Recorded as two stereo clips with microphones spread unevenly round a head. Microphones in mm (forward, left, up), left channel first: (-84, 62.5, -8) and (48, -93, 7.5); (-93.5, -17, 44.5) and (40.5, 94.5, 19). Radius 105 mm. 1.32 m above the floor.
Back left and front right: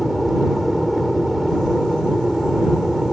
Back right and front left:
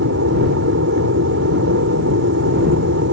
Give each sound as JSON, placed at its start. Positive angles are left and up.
{"t": 0.0, "sound": "an aircraft", "azimuth_deg": 40}